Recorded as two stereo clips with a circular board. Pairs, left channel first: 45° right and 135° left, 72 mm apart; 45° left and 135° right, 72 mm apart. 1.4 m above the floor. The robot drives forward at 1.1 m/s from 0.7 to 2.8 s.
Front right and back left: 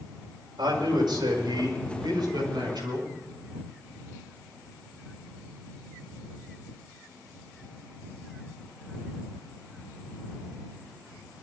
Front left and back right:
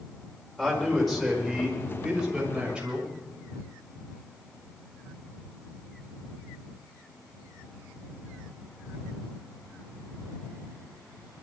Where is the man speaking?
130° left, 5.5 m; by 3.1 s 145° left, 7 m.